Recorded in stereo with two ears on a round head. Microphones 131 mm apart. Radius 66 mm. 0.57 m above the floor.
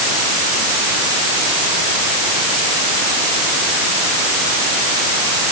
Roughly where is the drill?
I don't hear a drill.